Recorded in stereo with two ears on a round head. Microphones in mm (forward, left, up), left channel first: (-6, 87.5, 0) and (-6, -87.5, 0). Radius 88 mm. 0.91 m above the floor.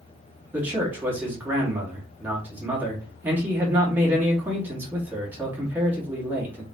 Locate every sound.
0.5 s a man speaking: 10° right (ahead or behind), 1.9 m